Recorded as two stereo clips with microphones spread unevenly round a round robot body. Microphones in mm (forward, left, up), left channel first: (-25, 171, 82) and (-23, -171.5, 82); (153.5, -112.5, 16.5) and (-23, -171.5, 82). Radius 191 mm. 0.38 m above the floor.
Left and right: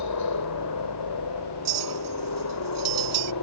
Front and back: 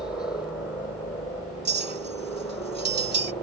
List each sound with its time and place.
0.0 s a helicopter: 95° left; by 3.4 s 85° left
1.6 s a clink: 120° right